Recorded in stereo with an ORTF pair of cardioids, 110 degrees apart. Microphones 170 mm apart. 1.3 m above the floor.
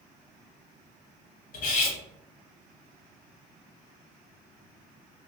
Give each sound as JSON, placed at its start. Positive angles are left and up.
{"t": 1.5, "sound": "cutlery clinking", "azimuth_deg": 65, "distance_m": 1.2}